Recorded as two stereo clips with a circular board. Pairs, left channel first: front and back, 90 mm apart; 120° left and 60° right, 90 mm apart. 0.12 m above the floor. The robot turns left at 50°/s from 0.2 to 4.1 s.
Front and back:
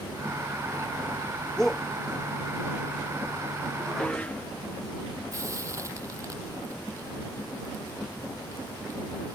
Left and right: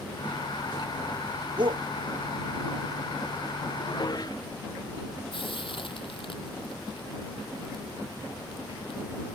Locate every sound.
1.6 s a shout: 85° right; by 1.9 s 95° right
3.8 s dishes clattering: 95° left; by 4.5 s 75° left
5.3 s frying: 125° left